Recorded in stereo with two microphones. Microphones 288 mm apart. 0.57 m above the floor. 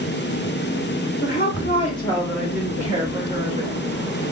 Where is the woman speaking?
35° left (ahead or behind), 1.1 m; by 3.8 s 25° right (ahead or behind), 1.4 m.